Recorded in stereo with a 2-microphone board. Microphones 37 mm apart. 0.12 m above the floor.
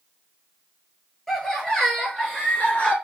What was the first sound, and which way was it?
Laughter, 10° left (ahead or behind).